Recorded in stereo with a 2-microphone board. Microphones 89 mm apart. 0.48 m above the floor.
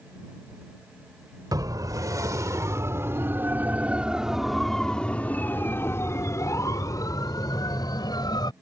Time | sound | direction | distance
1.5 | a siren | 45° right (ahead or behind) | ?